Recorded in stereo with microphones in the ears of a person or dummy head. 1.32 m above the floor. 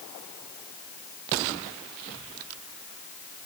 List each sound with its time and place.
Only background noise.